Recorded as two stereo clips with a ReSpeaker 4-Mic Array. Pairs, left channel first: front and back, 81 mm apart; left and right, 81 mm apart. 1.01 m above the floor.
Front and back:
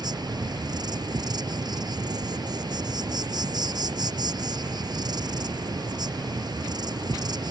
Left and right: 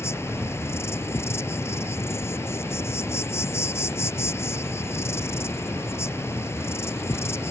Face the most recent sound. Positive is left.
turn(degrees=150)